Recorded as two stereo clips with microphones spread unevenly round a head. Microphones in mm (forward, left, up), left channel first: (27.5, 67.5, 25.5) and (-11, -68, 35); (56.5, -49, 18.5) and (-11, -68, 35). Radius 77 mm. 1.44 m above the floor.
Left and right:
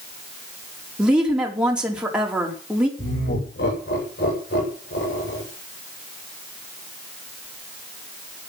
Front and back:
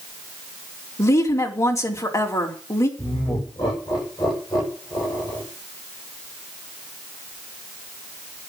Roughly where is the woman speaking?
Ahead.